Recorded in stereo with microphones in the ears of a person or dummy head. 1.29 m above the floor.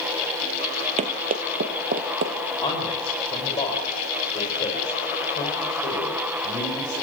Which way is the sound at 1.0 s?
40° right (ahead or behind).